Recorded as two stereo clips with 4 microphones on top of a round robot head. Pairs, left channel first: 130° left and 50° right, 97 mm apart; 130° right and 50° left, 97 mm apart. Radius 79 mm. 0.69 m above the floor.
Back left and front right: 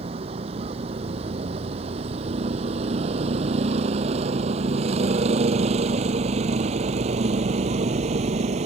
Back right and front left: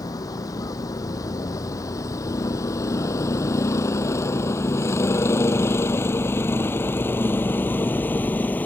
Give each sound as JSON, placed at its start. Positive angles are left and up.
{"t": 0.0, "sound": "a vehicle", "azimuth_deg": -75}